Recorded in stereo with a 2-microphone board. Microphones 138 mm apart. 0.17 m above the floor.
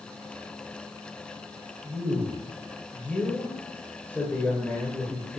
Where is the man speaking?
10° left (ahead or behind), 2.5 m.